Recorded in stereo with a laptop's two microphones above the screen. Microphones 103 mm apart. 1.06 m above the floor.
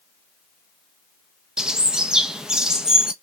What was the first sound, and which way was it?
A bird, 5° right (ahead or behind).